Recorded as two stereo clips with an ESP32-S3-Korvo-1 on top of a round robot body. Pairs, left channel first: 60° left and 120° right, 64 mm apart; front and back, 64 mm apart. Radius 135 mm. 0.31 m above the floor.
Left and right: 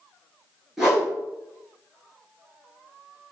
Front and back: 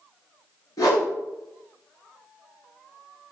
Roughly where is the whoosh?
Ahead right.